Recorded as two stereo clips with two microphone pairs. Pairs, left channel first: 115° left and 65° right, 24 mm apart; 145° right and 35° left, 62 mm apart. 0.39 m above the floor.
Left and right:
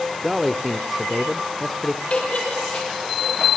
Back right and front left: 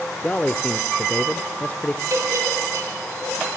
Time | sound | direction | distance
0.2 | a man speaking | 140° right | 0.8 m
2.1 | a giggle | 70° left | 6.5 m